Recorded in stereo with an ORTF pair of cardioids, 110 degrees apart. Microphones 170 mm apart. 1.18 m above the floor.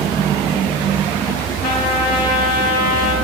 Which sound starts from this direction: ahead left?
A trumpet, at 1.6 s.